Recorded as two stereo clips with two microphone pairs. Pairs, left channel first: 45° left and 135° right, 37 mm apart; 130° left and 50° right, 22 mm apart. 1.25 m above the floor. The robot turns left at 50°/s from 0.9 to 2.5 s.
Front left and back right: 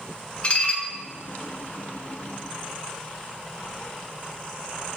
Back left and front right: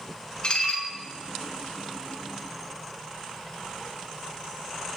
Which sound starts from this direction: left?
Dishes clattering, at 0.4 s.